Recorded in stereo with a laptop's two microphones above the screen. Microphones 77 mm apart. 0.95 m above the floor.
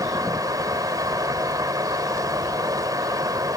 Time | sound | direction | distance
0.0 | a fan | 55° right (ahead or behind) | ?